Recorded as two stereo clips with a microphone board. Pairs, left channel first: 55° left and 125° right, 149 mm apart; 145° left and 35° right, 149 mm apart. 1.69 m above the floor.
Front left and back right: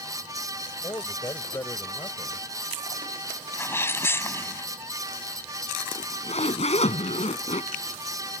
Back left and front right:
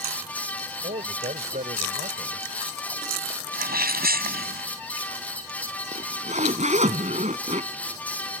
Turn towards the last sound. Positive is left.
turn(degrees=10)